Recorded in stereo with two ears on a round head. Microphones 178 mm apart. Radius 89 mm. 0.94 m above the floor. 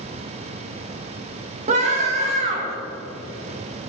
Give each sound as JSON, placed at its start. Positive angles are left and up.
{"t": 1.7, "sound": "a scream", "side_deg": -35, "distance_m": 1.7}